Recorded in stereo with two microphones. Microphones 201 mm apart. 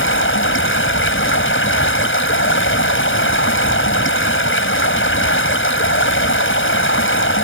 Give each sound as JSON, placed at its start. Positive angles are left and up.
{"t": 0.0, "sound": "running water", "side_deg": 85}